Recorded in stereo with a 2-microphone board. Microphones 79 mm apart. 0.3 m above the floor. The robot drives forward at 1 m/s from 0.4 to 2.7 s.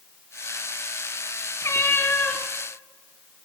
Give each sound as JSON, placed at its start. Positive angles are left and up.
{"t": 1.6, "sound": "a cat meowing", "side_deg": 40, "distance_m": 0.9}